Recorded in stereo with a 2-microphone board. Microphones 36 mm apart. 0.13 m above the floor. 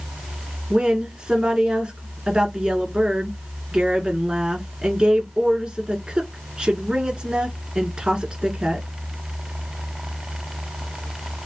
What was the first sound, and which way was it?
A woman speaking, 25° right (ahead or behind).